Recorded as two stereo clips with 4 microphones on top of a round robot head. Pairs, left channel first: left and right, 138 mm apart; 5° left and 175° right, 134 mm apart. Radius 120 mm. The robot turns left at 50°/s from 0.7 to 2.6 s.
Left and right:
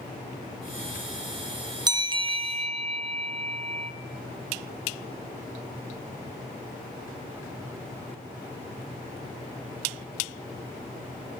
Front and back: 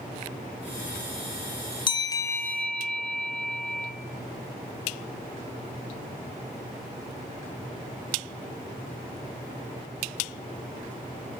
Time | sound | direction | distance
1.9 | a bell | 40° right | 1.7 m